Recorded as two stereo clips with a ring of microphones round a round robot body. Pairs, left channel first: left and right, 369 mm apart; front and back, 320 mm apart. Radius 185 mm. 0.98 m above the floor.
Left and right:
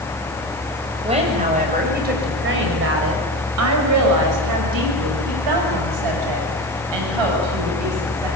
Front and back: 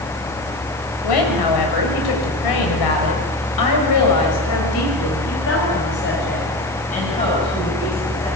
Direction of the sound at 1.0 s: 15° right.